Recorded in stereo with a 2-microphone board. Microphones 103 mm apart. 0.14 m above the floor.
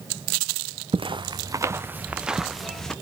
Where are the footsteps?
60° right (ahead or behind), 0.8 m; by 2.9 s 5° left (ahead or behind), 1.4 m.